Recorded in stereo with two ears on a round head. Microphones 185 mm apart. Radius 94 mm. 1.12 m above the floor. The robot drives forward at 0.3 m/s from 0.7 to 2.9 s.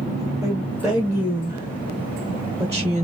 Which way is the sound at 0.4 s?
10° right (ahead or behind).